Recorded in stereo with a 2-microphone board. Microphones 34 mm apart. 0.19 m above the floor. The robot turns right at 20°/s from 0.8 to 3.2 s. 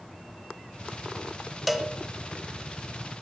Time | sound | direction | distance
1.7 | a cowbell | centre (ahead or behind) | 1.0 m